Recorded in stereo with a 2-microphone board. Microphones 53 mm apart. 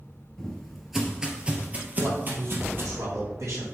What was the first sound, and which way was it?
Footsteps, 10° left (ahead or behind).